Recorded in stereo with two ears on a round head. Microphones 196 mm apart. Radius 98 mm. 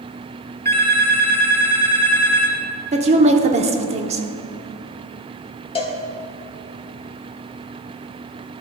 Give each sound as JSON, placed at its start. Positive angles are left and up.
{"t": 0.7, "sound": "a phone ringing", "side_deg": 10, "distance_m": 1.3}
{"t": 2.9, "sound": "a woman speaking", "side_deg": -30, "distance_m": 0.8}
{"t": 5.8, "sound": "a cowbell", "side_deg": 25, "distance_m": 1.0}